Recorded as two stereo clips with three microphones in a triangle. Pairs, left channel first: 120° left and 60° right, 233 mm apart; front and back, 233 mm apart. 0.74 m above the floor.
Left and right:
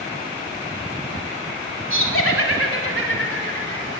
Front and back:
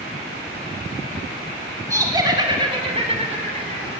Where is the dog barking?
No dog barking in this recording.